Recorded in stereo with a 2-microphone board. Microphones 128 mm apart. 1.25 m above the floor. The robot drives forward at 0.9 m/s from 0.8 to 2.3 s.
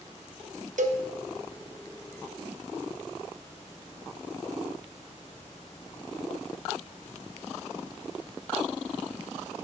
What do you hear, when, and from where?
0.8 s a cowbell: 75° right (ahead or behind), 0.9 m; by 1.0 s 60° right (ahead or behind), 1.0 m